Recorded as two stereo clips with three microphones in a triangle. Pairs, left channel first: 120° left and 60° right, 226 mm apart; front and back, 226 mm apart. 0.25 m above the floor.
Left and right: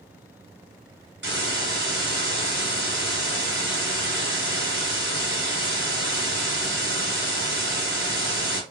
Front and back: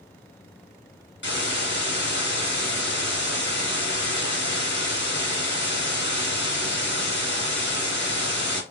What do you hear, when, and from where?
1.2 s a hiss: 30° right, 2.5 m